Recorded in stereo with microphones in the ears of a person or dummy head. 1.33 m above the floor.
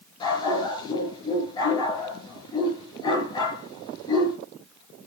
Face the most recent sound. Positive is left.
turn(degrees=25)  # may be behind; listen again after turning